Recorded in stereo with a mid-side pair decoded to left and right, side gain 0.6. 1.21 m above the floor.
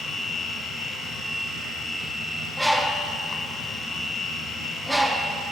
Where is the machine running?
20° left, 0.7 m.